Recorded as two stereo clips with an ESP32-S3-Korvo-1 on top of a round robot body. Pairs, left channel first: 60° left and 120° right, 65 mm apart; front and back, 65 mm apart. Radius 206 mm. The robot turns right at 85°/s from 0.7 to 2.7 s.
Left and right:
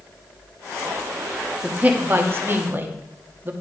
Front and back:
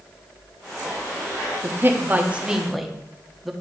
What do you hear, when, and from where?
1.6 s a man speaking: 175° left, 1.5 m; by 3.5 s 95° right, 1.5 m